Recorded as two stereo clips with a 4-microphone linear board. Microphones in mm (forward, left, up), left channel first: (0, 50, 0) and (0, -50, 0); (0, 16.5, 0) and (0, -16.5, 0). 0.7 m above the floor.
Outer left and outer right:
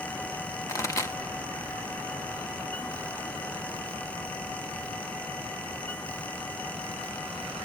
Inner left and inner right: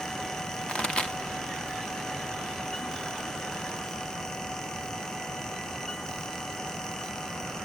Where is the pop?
30° left (ahead or behind), 1.2 m.